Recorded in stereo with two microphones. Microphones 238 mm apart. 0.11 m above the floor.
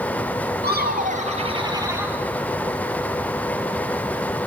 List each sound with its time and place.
0.6 s laughter: 45° right (ahead or behind), 2 m; by 2.2 s 10° right (ahead or behind), 2.5 m